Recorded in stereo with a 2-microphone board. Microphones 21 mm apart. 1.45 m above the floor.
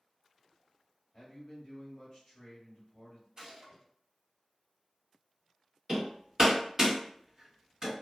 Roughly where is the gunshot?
Right.